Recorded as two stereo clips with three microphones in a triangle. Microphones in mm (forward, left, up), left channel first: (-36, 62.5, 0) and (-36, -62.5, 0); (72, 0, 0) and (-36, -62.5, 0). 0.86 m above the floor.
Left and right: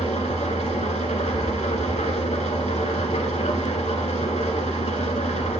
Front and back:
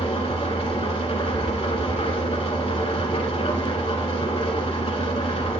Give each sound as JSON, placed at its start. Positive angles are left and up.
{"t": 0.0, "sound": "an engine running", "azimuth_deg": 65, "distance_m": 1.3}